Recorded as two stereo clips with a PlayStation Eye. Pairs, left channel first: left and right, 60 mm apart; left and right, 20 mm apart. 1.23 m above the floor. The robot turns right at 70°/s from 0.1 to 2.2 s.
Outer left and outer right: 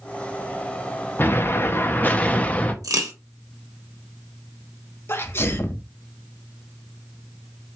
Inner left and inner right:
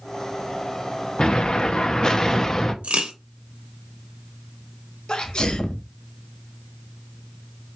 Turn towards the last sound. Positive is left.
turn(degrees=40)  # may be behind; listen again after turning